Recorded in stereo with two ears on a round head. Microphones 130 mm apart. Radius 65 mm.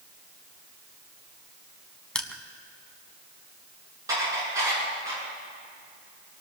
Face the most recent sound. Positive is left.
turn(degrees=-25)  # may be behind; listen again after turning